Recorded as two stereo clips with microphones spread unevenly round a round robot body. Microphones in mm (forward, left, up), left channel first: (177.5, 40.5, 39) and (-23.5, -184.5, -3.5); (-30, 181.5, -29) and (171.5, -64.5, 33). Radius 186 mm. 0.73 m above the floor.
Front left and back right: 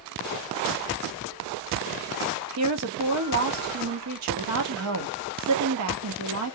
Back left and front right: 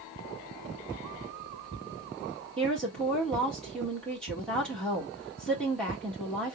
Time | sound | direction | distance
2.6 | a woman speaking | 150° right | 1.2 m